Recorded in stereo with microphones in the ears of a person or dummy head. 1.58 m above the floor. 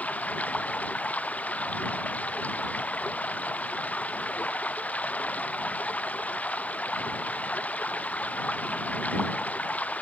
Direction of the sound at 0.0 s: 10° left (ahead or behind).